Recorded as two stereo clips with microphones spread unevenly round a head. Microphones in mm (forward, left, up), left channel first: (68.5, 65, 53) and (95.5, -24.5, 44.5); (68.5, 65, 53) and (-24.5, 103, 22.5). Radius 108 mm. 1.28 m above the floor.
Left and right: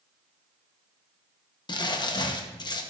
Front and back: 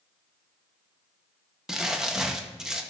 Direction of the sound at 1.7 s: 70° left.